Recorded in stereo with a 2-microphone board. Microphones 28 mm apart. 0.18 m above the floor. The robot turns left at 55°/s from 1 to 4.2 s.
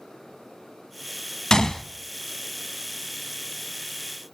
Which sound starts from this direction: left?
A gunshot, at 1.5 s.